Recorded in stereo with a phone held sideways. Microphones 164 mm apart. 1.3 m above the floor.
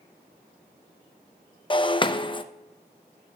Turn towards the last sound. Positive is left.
turn(degrees=30)  # may be behind; listen again after turning